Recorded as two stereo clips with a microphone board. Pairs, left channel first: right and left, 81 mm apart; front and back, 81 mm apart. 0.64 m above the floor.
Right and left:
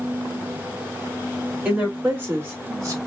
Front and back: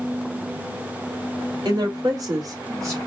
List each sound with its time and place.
1.6 s a woman speaking: 160° left, 2 m; by 3.0 s 130° left, 1.5 m